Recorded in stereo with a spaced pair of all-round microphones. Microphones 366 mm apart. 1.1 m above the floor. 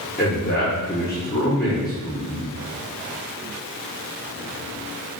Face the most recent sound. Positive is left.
turn(degrees=30)  # may be behind; listen again after turning